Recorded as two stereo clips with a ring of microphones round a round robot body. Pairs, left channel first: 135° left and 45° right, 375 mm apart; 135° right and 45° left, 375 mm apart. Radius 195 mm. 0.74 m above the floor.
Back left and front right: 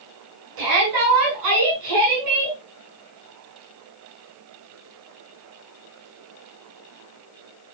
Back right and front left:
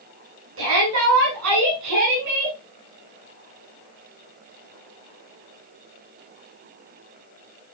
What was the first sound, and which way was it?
A shout, 10° right.